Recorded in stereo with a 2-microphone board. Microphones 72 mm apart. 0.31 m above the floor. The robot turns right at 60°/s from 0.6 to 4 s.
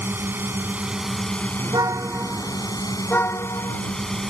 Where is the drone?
35° right; by 4.3 s 170° left.